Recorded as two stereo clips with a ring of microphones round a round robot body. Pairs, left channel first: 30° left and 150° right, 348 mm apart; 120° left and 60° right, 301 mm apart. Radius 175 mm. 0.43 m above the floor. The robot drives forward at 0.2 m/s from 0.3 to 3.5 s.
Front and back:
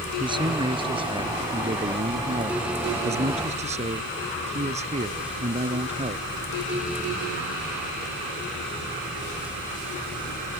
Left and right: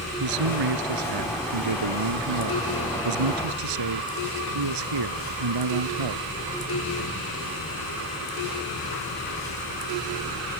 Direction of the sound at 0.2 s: 75° right.